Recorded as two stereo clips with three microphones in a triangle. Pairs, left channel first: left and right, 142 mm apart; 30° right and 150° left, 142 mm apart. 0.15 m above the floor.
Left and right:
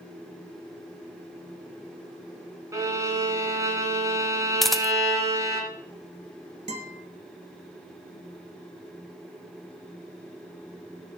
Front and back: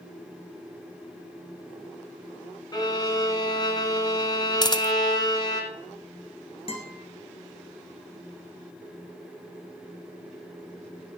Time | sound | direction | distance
2.7 | a violin | 45° right | 1.8 m
4.6 | a camera shutter | straight ahead | 0.5 m
6.7 | a guitar | 65° right | 1.7 m